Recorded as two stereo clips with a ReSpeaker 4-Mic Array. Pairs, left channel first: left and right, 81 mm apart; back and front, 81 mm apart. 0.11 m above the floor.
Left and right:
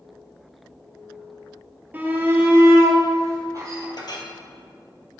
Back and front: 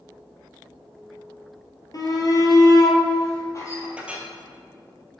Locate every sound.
1.9 s a shout: 155° right, 1.9 m; by 3.9 s 135° right, 3 m
4.0 s a clink: 75° left, 1.6 m